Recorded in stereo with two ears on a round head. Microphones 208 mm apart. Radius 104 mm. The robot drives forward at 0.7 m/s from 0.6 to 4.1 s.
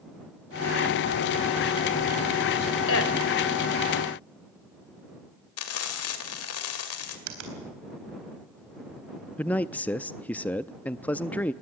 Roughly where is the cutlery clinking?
No cutlery clinking in this recording.